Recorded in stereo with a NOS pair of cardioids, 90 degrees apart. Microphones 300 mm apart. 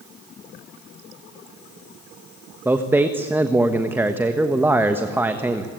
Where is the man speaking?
5° right, 1.3 m.